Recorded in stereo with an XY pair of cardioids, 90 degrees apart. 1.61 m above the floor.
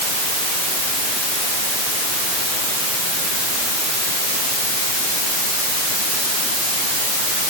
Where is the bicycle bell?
No bicycle bell in this recording.